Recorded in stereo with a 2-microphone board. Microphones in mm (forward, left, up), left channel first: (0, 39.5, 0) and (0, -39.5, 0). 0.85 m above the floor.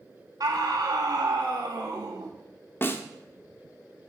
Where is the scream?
60° right (ahead or behind), 2.0 m.